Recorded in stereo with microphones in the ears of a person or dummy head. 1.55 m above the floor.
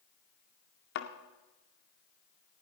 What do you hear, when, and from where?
0.9 s a thud: 60° left (ahead or behind), 1.9 m